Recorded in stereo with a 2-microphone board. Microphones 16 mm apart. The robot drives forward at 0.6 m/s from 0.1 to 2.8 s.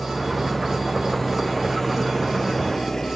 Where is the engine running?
20° left (ahead or behind), 3.5 m; by 3.2 s 35° left (ahead or behind), 1.8 m.